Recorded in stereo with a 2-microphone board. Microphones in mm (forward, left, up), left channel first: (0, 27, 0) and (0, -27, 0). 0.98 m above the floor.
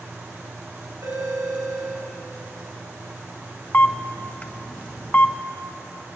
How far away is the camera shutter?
About 0.6 m.